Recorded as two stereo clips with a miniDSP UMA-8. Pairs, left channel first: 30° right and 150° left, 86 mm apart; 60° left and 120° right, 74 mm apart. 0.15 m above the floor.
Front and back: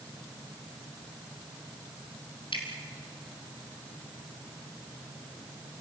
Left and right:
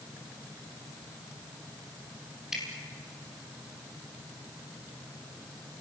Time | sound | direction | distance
2.5 | dripping | 35° right | 3 m